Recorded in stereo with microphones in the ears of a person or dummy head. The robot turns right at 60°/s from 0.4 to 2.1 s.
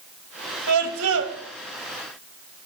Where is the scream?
95° right, 2.5 m; by 1.4 s 55° right, 2.5 m.